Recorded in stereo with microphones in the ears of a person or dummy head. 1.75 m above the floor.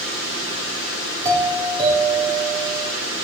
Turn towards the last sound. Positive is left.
turn(degrees=-20)  # may be behind; listen again after turning